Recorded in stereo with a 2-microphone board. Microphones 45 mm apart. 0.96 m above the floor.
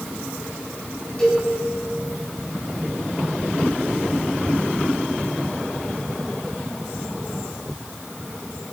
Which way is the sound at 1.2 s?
15° left (ahead or behind).